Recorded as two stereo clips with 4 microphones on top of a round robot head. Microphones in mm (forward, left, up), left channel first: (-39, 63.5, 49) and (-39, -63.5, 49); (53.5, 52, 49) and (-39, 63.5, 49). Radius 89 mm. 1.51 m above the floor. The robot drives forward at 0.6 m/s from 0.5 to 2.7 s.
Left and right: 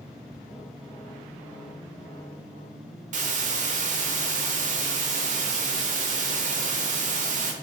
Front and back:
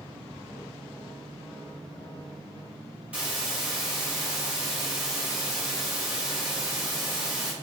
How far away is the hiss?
About 0.8 m.